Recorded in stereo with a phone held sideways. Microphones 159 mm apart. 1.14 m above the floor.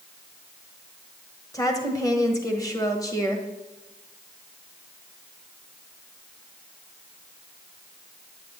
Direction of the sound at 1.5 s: 20° left (ahead or behind).